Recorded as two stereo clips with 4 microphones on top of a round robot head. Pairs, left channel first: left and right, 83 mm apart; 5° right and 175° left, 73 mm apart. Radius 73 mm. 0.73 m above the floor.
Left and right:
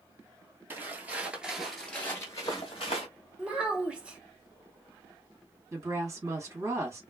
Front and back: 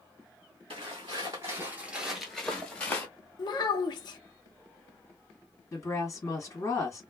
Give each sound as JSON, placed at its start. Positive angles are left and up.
{"t": 0.7, "sound": "footsteps", "azimuth_deg": -150, "distance_m": 1.0}
{"t": 3.4, "sound": "a child speaking", "azimuth_deg": -15, "distance_m": 0.8}
{"t": 5.7, "sound": "a woman speaking", "azimuth_deg": -40, "distance_m": 1.7}